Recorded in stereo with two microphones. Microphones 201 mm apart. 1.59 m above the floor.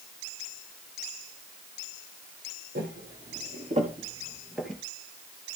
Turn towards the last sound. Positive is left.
turn(degrees=5)  # may be behind; listen again after turning